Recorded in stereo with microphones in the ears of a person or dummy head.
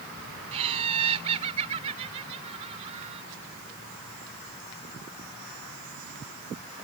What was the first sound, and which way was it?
Laughter, 35° right (ahead or behind).